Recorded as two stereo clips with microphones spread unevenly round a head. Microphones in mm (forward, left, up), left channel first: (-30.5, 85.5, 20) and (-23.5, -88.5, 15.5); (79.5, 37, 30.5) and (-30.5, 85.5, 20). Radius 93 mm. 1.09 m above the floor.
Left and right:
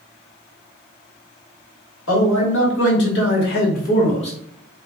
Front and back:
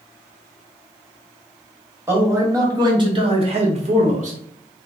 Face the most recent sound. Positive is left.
turn(degrees=150)